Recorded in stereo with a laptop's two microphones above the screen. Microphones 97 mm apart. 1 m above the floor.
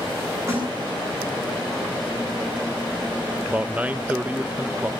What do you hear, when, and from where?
0.5 s a snare drum: 30° right (ahead or behind), 8 m
3.5 s a man speaking: 15° right (ahead or behind), 0.6 m